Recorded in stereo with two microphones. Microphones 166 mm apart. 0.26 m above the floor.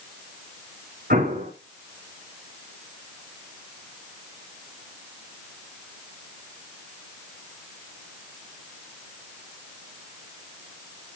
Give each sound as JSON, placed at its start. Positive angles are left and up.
{"t": 1.1, "sound": "an explosion", "side_deg": -70, "distance_m": 8.0}